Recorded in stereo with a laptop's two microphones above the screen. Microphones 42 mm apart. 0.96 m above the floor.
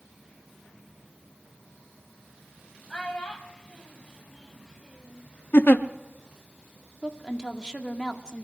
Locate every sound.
2.9 s a child speaking: 10° left (ahead or behind), 5 m; by 5.3 s 20° right (ahead or behind), 5 m
5.5 s a giggle: 50° left (ahead or behind), 0.6 m
7.0 s a woman speaking: 20° left (ahead or behind), 1.7 m